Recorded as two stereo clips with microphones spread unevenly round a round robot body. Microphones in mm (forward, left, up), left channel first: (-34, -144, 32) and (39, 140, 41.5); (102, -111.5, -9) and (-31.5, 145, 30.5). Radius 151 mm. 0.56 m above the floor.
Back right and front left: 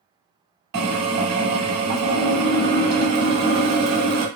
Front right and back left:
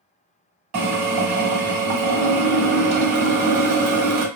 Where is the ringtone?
No ringtone in this recording.